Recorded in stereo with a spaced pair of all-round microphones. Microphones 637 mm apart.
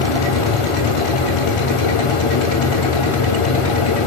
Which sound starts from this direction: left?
A fan, at 0.0 s.